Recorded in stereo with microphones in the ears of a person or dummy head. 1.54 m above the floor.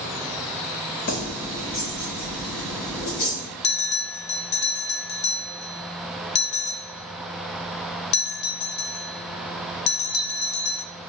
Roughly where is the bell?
Left.